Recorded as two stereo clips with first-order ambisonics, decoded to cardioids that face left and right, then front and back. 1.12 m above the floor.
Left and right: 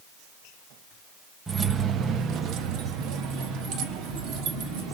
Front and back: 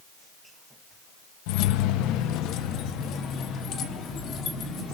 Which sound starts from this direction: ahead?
Keys jangling, at 1.5 s.